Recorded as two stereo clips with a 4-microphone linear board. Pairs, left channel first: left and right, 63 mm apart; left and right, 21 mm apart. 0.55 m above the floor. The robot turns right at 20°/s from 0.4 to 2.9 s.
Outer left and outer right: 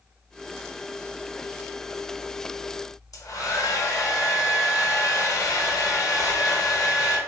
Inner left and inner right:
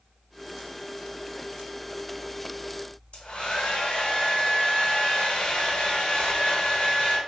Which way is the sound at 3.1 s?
65° left (ahead or behind).